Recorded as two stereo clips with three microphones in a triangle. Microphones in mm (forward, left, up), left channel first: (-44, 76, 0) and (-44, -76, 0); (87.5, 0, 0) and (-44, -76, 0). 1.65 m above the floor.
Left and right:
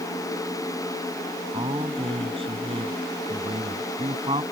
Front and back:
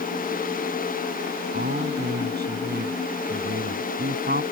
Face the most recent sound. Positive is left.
turn(degrees=-145)